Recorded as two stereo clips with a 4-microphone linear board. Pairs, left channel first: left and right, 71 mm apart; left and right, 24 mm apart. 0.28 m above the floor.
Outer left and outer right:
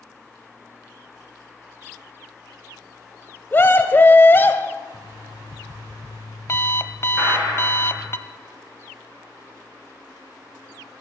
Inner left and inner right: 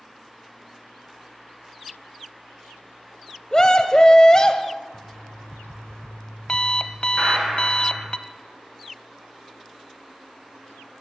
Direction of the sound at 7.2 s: 25° right (ahead or behind).